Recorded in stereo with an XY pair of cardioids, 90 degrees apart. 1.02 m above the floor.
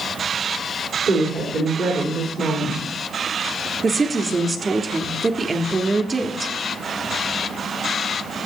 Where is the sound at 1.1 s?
65° right, 3.5 m.